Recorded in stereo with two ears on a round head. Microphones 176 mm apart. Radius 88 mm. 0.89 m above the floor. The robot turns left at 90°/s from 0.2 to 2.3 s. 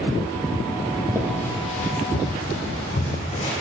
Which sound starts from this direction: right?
Footsteps, at 1.1 s.